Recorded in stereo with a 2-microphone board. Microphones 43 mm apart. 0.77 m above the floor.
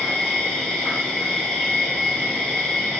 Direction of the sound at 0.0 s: 15° left (ahead or behind).